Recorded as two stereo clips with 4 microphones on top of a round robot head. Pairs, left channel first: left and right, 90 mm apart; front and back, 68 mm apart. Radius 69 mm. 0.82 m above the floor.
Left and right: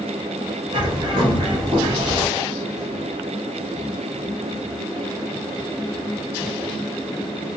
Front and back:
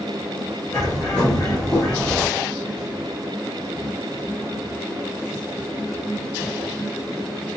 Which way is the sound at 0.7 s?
70° right.